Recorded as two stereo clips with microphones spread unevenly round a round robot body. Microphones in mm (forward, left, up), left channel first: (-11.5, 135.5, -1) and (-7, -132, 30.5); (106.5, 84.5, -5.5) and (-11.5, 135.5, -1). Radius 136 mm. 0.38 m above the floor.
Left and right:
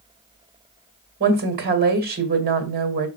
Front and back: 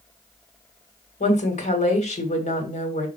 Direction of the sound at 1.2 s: 35° right.